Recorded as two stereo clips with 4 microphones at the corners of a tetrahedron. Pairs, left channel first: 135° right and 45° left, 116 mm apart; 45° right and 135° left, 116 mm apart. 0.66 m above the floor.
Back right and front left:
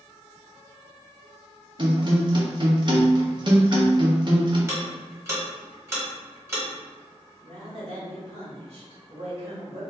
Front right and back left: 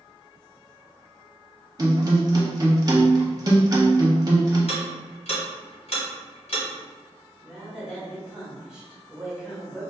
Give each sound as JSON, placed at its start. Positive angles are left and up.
{"t": 1.8, "sound": "a guitar", "azimuth_deg": 85, "distance_m": 0.7}
{"t": 4.7, "sound": "ticking", "azimuth_deg": -20, "distance_m": 1.3}
{"t": 7.4, "sound": "a woman speaking", "azimuth_deg": 55, "distance_m": 1.6}